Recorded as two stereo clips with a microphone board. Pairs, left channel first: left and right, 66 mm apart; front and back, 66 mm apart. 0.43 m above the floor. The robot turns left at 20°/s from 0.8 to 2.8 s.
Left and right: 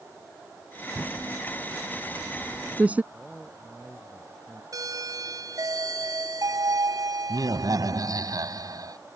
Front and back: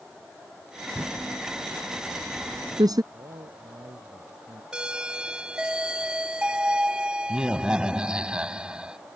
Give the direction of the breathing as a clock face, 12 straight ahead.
No breathing in this recording.